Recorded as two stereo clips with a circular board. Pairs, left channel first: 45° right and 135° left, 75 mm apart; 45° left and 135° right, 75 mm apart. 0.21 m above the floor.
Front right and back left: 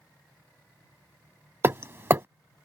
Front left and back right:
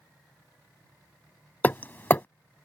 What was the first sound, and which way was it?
Hammering, 95° left.